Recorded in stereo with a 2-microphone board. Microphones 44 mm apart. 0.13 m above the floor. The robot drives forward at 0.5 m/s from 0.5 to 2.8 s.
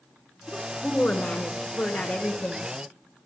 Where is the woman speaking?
30° left (ahead or behind), 1.6 m; by 2.7 s 35° left (ahead or behind), 1.5 m.